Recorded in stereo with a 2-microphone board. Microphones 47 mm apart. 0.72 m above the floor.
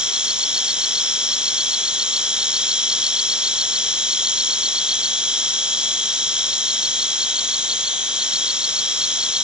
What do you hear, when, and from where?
0.0 s an insect: 20° right (ahead or behind)